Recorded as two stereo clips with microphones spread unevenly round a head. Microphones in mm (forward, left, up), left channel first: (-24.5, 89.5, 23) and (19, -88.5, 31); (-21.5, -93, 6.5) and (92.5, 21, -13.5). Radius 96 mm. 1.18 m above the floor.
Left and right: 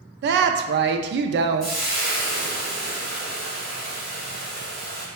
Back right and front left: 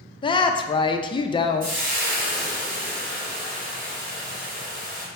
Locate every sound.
0.2 s a woman speaking: 75° right, 0.5 m
1.6 s frying: 15° left, 2 m